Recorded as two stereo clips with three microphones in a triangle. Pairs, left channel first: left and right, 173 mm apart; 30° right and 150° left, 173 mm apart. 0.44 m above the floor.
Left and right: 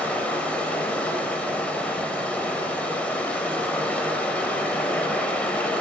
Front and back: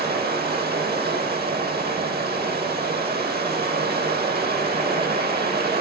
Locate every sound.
0.0 s running water: 170° left, 0.8 m